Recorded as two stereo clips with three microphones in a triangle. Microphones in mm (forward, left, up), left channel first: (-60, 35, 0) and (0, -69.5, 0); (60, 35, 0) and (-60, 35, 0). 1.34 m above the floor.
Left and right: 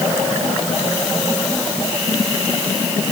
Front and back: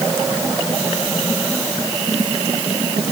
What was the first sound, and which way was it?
Only background noise.